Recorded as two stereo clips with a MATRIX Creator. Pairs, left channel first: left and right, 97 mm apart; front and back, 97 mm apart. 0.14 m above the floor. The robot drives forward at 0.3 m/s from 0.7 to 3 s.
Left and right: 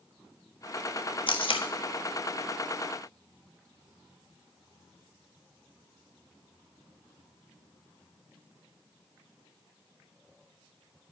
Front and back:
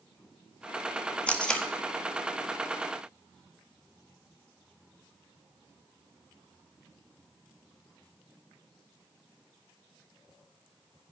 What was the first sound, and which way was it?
Tape being pulled, 75° left.